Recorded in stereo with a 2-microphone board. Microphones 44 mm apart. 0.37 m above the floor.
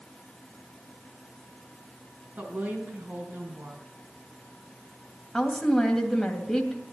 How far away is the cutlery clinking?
No cutlery clinking in this recording.